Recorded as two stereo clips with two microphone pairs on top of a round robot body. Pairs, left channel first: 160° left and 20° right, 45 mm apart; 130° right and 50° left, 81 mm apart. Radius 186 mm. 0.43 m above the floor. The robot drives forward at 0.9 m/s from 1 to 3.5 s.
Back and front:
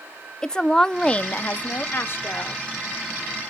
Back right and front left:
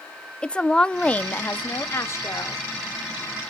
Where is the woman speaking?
170° right, 0.7 m; by 2.6 s straight behind, 1.8 m.